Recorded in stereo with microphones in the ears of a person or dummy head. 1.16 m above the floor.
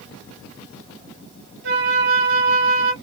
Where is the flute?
55° right (ahead or behind), 1.3 m.